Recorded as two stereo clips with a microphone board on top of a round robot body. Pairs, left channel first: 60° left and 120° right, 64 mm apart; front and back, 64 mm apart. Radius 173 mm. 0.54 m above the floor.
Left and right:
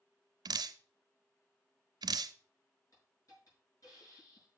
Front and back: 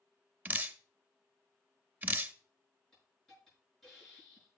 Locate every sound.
0.5 s dripping: 115° right, 0.5 m
2.9 s a hiss: 90° left, 6 m